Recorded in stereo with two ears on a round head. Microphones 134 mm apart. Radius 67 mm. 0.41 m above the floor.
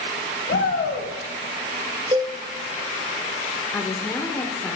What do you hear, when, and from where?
0.5 s a shout: 60° left (ahead or behind), 2 m
2.1 s a cowbell: 30° right (ahead or behind), 0.9 m
3.7 s a woman speaking: 10° left (ahead or behind), 0.8 m